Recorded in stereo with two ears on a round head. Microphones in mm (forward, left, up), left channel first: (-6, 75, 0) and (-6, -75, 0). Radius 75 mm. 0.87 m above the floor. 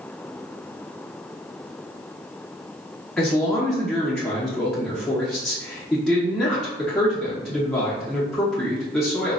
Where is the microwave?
I don't hear a microwave.